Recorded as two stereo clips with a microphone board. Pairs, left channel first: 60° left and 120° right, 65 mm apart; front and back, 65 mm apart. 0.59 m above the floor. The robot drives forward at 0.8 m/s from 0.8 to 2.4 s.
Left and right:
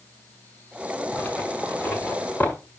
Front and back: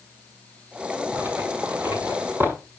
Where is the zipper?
120° left, 5 m; by 2.5 s 130° left, 6 m.